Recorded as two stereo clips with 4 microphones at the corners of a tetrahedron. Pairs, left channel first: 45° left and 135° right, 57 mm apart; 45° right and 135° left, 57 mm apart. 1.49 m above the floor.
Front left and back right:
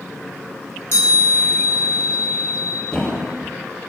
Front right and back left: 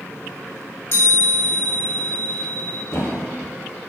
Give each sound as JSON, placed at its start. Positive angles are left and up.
{"t": 0.9, "sound": "a chime", "azimuth_deg": 0, "distance_m": 3.0}
{"t": 2.9, "sound": "a thud", "azimuth_deg": -25, "distance_m": 1.1}